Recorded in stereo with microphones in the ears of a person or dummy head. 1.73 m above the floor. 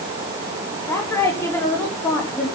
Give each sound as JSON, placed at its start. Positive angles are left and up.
{"t": 0.9, "sound": "a woman speaking", "side_deg": 10, "distance_m": 5.0}